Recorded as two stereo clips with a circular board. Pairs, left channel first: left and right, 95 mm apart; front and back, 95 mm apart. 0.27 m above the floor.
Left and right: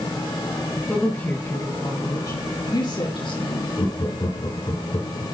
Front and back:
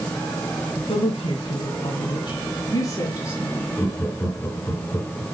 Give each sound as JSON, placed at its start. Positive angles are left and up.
{"t": 0.9, "sound": "a woman speaking", "azimuth_deg": 20, "distance_m": 4.0}
{"t": 3.8, "sound": "laughter", "azimuth_deg": 65, "distance_m": 3.5}